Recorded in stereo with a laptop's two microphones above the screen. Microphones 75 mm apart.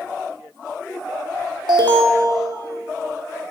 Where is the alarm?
75° right (ahead or behind), 1.5 m.